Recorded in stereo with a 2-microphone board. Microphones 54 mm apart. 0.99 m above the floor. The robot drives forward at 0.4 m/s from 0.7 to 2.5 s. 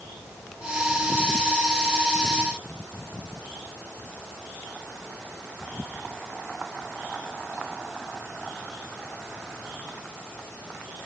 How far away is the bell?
No bell in this recording.